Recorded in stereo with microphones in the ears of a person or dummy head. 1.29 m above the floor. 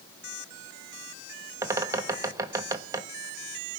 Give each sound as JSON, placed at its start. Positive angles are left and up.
{"t": 1.6, "sound": "a bird", "side_deg": -15, "distance_m": 1.2}